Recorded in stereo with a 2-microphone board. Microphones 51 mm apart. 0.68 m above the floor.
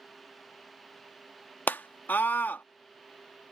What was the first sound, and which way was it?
A scream, 35° left (ahead or behind).